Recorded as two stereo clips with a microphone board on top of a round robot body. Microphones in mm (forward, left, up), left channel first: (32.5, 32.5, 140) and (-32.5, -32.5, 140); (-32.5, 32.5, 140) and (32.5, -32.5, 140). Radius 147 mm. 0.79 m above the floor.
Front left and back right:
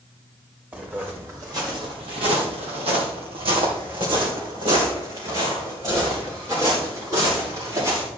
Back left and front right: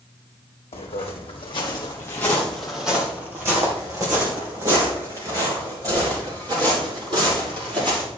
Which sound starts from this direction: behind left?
Footsteps, at 0.7 s.